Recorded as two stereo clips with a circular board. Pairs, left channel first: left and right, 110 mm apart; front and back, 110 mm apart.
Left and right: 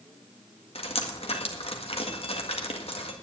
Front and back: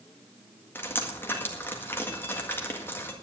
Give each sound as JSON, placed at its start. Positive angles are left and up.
{"t": 0.8, "sound": "dripping", "azimuth_deg": 70, "distance_m": 1.8}